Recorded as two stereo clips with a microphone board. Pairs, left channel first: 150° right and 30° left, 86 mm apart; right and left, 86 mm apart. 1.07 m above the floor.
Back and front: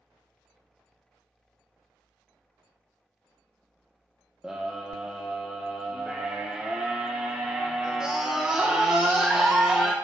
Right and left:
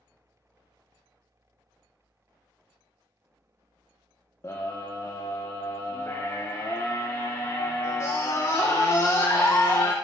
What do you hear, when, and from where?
4.4 s a scream: 45° right, 1.0 m